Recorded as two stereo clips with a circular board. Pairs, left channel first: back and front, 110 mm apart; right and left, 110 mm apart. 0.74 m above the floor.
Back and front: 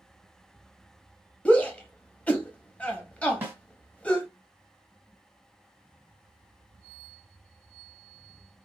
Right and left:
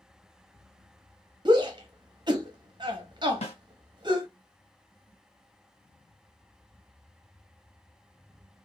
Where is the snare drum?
70° right, 1.8 m.